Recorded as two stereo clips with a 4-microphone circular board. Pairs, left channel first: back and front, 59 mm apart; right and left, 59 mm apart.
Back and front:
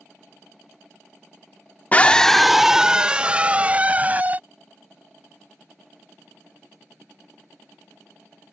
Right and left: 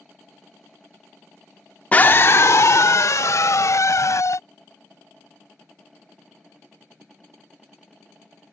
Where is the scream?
135° right; by 4.4 s 60° right.